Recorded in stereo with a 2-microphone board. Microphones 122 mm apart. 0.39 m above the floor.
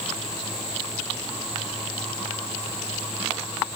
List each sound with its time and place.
Only background noise.